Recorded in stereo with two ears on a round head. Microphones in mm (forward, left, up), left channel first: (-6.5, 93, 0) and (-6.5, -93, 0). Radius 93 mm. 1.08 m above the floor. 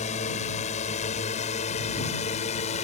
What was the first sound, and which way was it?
A drone, 35° left (ahead or behind).